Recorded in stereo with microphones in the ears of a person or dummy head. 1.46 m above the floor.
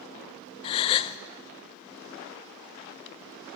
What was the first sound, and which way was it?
A gasp, 25° left (ahead or behind).